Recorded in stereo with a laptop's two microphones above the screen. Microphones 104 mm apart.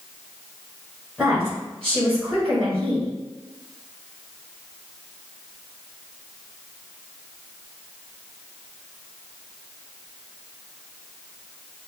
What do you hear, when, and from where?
1.2 s a woman speaking: 5° right (ahead or behind), 1.4 m